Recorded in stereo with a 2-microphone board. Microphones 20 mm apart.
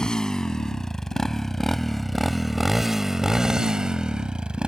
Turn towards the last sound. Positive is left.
turn(degrees=-55)  # may be behind; listen again after turning